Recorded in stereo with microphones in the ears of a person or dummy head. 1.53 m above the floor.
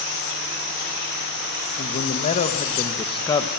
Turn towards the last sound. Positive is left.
turn(degrees=20)  # may be behind; listen again after turning